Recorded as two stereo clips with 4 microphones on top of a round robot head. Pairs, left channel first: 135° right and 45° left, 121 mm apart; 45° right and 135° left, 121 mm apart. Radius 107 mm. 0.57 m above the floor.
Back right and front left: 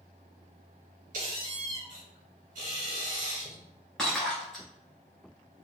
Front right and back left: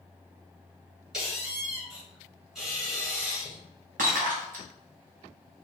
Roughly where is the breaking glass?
Behind left.